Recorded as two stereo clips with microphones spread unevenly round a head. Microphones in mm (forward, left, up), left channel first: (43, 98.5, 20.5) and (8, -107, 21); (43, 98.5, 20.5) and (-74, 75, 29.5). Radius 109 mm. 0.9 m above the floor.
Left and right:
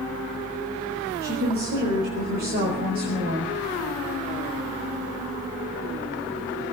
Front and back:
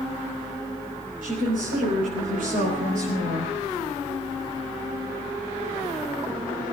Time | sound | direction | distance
1.2 | a woman speaking | 150° right | 5.5 m